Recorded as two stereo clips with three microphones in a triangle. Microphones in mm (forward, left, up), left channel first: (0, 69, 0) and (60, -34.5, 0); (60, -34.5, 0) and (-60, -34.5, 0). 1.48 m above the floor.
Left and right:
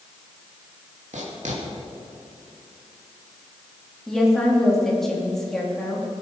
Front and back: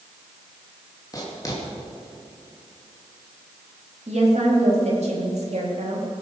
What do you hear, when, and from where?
1.1 s writing: 60° right, 2.5 m
4.1 s a woman speaking: 155° right, 3 m